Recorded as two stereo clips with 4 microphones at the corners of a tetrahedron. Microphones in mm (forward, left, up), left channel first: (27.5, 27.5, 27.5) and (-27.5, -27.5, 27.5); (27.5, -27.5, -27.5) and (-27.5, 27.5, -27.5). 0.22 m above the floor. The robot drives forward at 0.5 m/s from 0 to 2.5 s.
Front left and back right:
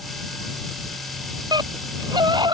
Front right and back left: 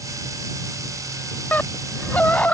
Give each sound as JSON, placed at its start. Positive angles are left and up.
{"t": 1.5, "sound": "a scream", "azimuth_deg": -110}